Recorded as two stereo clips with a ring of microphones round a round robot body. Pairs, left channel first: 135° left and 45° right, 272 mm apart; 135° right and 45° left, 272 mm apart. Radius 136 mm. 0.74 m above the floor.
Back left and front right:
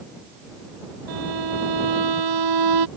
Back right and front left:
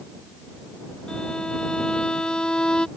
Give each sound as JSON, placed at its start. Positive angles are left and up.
{"t": 1.1, "sound": "a violin", "azimuth_deg": -50}